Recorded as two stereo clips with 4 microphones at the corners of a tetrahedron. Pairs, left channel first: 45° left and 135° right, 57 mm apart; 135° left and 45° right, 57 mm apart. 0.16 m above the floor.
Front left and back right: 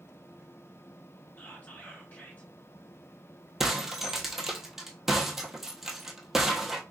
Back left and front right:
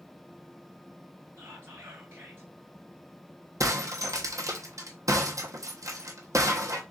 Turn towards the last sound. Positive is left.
turn(degrees=-55)